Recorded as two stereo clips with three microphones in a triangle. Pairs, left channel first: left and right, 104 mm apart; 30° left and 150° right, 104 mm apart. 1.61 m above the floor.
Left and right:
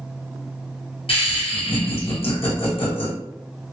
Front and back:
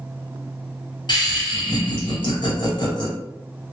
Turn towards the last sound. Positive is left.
turn(degrees=70)